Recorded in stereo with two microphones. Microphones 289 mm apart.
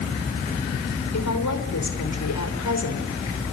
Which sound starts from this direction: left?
A woman speaking, at 1.1 s.